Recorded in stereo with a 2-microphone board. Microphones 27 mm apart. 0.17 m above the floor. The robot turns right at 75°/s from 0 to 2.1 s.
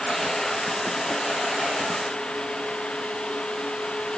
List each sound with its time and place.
Only background noise.